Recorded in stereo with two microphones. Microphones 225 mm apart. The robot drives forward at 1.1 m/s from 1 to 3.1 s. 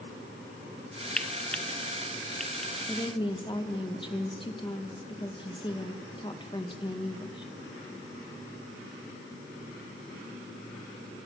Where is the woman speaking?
20° left (ahead or behind), 2 m.